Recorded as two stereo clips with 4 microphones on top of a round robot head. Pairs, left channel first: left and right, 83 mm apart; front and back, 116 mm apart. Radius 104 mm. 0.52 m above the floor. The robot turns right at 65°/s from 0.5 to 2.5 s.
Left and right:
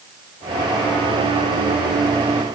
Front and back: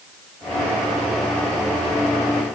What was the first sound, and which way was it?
Only background noise.